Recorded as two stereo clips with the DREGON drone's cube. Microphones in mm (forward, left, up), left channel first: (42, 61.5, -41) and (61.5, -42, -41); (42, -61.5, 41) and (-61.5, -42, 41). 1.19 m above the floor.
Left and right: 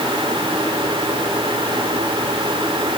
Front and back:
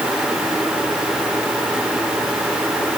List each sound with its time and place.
Only background noise.